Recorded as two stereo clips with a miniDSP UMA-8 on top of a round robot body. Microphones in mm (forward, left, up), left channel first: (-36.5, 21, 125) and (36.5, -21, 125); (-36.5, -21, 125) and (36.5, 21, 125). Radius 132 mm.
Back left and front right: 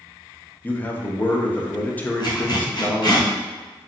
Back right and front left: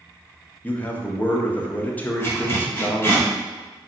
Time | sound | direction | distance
0.6 | a man speaking | straight behind | 0.8 m
2.2 | a zipper | 150° left | 1.9 m